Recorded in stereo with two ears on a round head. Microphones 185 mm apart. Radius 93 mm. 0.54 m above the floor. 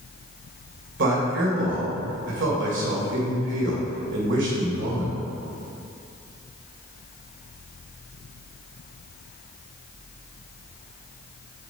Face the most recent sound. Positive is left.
turn(degrees=-65)  # may be behind; listen again after turning